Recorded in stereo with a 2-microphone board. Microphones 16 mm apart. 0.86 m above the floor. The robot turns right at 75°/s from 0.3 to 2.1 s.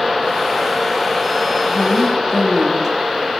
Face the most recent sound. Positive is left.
turn(degrees=-165)